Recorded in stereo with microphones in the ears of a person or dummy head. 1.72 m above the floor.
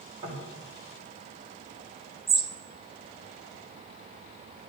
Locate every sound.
0.2 s knocking: 35° right (ahead or behind), 6 m
2.3 s a bird: 5° right (ahead or behind), 1.0 m